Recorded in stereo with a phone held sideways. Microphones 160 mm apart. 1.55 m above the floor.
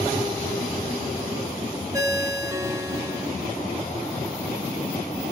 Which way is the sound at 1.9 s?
20° right (ahead or behind).